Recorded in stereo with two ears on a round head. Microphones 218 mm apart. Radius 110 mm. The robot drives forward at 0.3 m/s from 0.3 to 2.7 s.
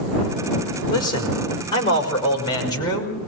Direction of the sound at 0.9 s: 20° left (ahead or behind).